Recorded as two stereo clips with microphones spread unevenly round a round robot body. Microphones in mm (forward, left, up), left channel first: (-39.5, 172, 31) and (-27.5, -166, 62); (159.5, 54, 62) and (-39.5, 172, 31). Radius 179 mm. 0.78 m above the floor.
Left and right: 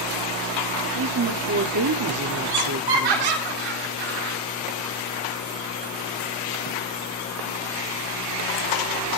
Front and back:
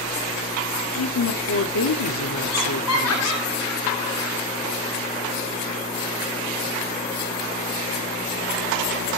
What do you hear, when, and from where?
0.9 s a woman speaking: 40° right, 1.9 m
2.5 s laughter: 65° right, 7 m